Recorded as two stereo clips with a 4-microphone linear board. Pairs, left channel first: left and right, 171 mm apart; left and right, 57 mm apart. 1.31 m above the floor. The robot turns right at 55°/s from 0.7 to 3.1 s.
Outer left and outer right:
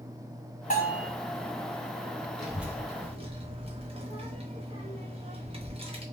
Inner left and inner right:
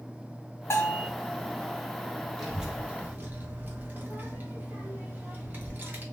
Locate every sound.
0.7 s a bell: 50° left (ahead or behind), 1.8 m; by 1.1 s 60° left (ahead or behind), 1.8 m
2.4 s a child speaking: 5° left (ahead or behind), 1.0 m; by 6.0 s 35° right (ahead or behind), 1.0 m